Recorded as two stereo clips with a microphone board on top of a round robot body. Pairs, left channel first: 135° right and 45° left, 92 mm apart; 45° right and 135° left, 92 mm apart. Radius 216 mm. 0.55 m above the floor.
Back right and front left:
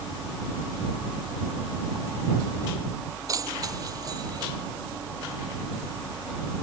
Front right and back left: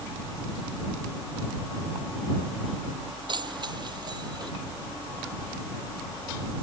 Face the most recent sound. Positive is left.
turn(degrees=90)